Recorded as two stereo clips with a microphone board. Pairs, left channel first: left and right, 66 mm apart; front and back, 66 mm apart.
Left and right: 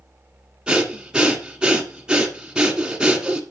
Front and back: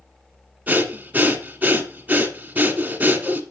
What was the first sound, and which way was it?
Breathing, 150° right.